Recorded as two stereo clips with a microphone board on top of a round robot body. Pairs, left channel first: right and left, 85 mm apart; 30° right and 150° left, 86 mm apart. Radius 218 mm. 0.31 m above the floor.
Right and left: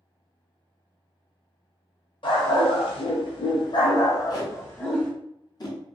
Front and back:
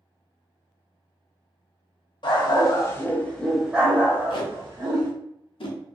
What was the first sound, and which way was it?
A dog barking, 65° right.